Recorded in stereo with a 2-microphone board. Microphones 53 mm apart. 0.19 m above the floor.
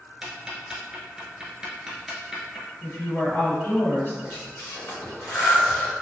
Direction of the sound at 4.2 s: 40° left (ahead or behind).